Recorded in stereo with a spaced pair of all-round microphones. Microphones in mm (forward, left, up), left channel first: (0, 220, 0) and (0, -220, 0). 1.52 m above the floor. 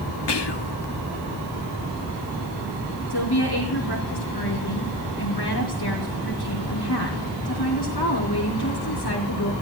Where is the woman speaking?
60° left (ahead or behind), 3 m.